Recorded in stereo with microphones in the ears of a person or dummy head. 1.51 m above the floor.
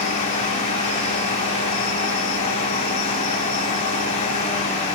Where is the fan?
40° left (ahead or behind), 5 m.